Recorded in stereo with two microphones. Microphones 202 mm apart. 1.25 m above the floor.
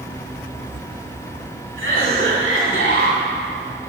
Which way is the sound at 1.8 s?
70° right (ahead or behind).